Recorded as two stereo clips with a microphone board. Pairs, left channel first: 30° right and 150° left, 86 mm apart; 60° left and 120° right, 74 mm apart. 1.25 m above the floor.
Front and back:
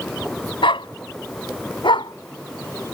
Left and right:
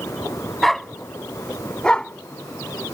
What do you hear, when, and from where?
0.6 s a dog barking: 25° right; by 2.9 s 10° right